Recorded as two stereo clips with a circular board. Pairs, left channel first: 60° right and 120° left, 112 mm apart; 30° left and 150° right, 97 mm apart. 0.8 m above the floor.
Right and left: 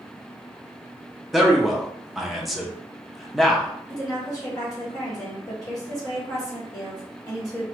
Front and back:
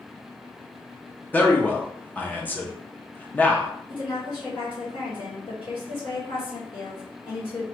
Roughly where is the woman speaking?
Ahead.